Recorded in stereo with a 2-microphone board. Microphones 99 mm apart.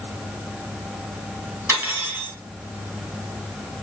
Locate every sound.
1.7 s cutlery clinking: 25° right (ahead or behind), 2.0 m